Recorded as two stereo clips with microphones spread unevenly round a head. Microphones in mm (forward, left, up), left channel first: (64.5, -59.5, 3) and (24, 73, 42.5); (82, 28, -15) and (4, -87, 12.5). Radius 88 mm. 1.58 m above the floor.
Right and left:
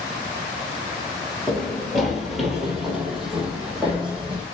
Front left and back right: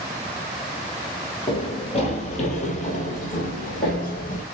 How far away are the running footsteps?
About 1.6 m.